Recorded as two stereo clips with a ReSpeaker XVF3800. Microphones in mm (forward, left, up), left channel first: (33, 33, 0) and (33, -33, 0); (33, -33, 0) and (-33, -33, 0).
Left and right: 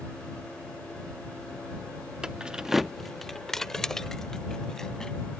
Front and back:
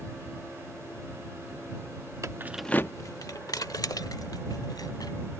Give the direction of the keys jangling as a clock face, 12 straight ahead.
5 o'clock.